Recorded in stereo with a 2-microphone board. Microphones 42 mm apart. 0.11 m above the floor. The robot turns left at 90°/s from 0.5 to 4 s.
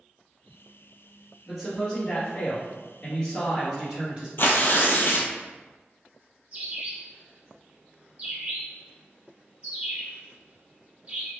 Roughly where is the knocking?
I don't hear knocking.